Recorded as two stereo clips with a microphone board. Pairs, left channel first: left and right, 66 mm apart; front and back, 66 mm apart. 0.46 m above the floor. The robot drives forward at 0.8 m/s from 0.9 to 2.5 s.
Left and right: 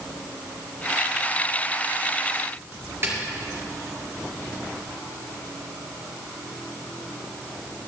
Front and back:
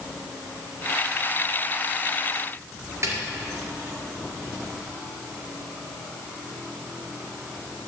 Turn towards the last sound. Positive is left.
turn(degrees=-140)